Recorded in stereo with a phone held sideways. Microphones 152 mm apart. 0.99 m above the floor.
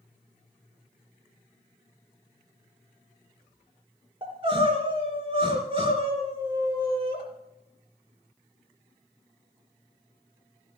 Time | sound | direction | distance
4.2 | crying | 35° right (ahead or behind) | 3 m